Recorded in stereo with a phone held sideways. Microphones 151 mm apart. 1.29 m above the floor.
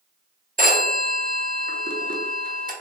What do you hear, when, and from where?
0.6 s a phone ringing: 65° right (ahead or behind), 0.6 m